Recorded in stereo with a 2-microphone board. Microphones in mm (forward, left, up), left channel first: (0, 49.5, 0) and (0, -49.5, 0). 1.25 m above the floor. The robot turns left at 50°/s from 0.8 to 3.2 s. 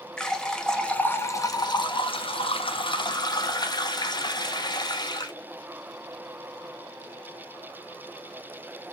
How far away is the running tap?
About 0.6 m.